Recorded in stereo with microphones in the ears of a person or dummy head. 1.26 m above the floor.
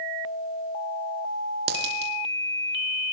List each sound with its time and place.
1.7 s a dropped coin: 60° right (ahead or behind), 4 m